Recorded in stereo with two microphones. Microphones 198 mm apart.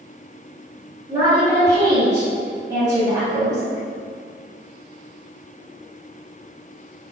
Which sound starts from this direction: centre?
A woman speaking, at 1.1 s.